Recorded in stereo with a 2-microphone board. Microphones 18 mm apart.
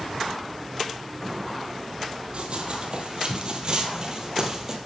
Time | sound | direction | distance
2.3 | running footsteps | 55° right (ahead or behind) | 2.5 m